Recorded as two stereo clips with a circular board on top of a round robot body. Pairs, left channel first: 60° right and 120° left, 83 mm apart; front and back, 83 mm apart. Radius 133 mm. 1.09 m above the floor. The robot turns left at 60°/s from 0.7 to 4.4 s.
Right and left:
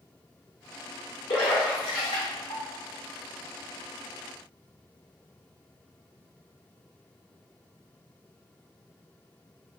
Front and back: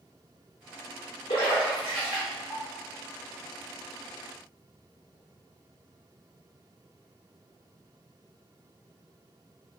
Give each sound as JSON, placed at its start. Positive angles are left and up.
{"t": 1.3, "sound": "a splash", "azimuth_deg": -10, "distance_m": 0.6}